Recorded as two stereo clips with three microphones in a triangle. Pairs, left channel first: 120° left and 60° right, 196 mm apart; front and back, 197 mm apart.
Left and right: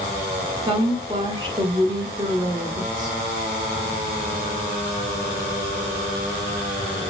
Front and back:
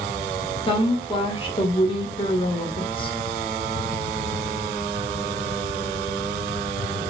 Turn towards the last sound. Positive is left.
turn(degrees=-25)